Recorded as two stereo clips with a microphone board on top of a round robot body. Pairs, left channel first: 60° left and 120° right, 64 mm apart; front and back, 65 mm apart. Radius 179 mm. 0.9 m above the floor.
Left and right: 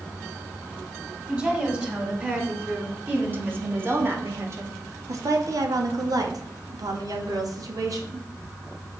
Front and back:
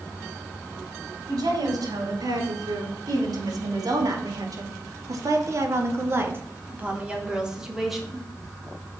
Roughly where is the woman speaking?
Behind.